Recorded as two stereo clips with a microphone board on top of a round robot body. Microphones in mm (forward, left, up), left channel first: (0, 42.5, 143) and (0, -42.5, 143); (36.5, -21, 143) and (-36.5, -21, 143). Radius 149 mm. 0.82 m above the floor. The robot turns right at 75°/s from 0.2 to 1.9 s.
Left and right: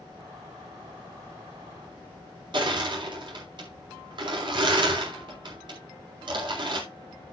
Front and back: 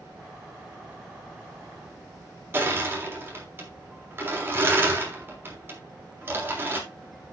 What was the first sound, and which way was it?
Crushing, 120° right.